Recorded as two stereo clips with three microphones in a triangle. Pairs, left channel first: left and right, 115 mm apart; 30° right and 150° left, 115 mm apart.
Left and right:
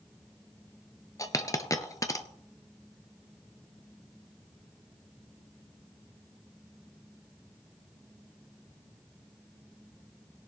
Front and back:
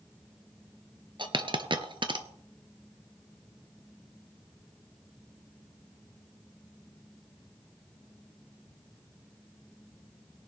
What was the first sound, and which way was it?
A dropped coin, 135° left.